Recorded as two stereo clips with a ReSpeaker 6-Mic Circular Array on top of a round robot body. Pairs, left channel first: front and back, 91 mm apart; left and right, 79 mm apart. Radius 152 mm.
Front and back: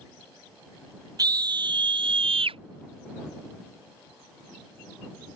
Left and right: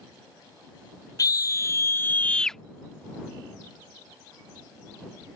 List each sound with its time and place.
1.2 s a scream: 135° left; by 2.6 s straight behind